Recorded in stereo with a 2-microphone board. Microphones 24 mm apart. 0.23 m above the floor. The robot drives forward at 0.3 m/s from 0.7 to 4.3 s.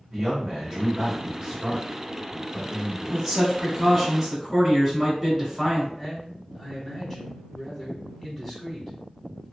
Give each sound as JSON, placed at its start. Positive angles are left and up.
{"t": 0.1, "sound": "a man speaking", "side_deg": -25, "distance_m": 1.9}
{"t": 3.1, "sound": "a man speaking", "side_deg": -10, "distance_m": 1.3}
{"t": 5.9, "sound": "a man speaking", "side_deg": 15, "distance_m": 1.3}